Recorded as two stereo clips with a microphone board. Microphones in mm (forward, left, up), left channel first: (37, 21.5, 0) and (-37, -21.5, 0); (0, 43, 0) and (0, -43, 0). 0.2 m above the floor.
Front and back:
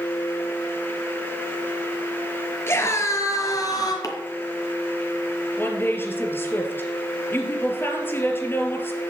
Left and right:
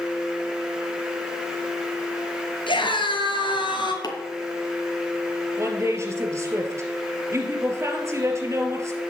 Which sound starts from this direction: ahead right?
A woman speaking, at 5.6 s.